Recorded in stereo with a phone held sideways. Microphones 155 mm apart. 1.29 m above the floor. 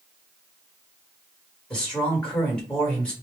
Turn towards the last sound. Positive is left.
turn(degrees=5)  # may be behind; listen again after turning